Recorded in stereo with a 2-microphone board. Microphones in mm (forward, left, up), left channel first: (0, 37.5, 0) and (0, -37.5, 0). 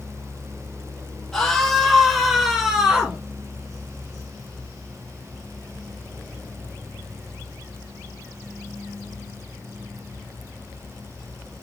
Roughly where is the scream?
Centre.